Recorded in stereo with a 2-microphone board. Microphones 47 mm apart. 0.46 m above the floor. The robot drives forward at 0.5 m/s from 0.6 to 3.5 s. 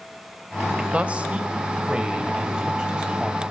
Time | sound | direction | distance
0.9 | a man speaking | 30° right (ahead or behind) | 1.7 m